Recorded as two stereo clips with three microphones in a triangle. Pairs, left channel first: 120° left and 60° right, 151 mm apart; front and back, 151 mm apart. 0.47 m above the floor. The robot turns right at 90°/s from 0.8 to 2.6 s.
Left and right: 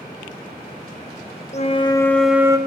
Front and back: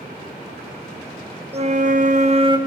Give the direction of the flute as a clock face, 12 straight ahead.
7 o'clock.